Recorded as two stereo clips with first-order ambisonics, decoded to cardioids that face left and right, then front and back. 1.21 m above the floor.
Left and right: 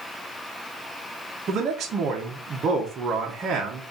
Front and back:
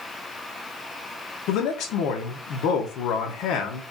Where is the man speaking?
30° right, 0.7 m.